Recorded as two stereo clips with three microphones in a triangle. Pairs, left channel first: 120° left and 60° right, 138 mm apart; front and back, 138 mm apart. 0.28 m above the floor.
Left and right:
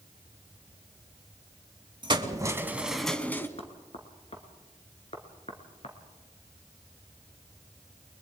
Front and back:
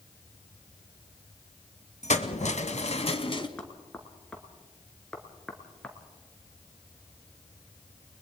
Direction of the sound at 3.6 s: 85° left.